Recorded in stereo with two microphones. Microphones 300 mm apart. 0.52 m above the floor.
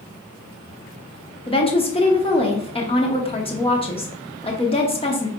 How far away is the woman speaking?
About 0.8 m.